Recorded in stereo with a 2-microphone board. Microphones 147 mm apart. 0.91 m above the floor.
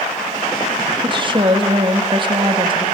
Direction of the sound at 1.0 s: 35° right (ahead or behind).